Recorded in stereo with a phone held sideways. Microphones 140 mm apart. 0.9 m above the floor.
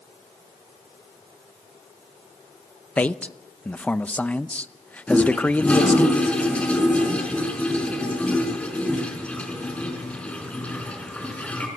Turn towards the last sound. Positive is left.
turn(degrees=10)  # may be behind; listen again after turning